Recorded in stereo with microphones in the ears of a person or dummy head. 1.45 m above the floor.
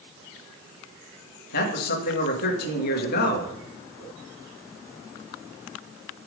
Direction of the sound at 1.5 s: 60° left (ahead or behind).